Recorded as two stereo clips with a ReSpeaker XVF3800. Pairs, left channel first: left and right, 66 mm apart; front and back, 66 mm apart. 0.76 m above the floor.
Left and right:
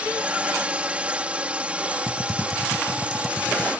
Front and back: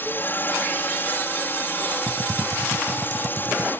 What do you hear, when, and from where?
0.0 s a drone: 30° right
2.1 s typing on a keyboard: 175° left